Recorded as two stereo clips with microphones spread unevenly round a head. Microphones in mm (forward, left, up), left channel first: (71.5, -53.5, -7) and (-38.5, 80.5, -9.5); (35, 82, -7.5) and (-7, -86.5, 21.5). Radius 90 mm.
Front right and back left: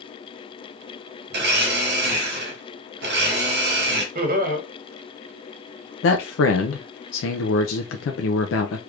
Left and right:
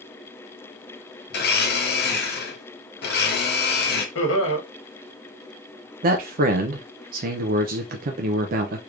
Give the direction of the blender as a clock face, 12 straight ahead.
9 o'clock.